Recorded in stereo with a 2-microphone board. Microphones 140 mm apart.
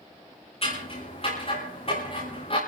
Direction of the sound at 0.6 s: 45° left (ahead or behind).